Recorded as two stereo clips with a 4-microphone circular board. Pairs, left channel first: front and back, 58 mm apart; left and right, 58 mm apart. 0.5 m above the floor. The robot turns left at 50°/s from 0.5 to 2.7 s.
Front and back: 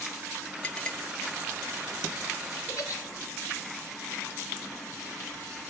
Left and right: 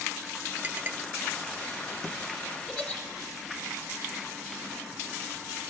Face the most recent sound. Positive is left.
turn(degrees=10)